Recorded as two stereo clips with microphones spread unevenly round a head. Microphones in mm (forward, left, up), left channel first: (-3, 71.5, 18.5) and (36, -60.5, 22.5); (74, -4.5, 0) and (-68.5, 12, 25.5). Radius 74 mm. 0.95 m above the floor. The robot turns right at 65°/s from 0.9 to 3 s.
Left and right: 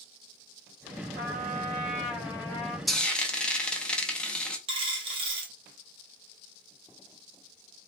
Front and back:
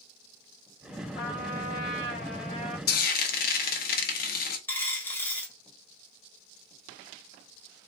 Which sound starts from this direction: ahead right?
A trumpet, at 1.2 s.